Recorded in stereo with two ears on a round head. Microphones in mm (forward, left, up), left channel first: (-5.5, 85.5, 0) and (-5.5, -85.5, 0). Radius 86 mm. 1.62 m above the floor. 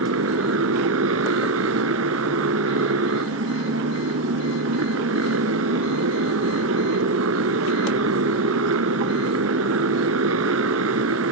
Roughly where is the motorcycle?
Right.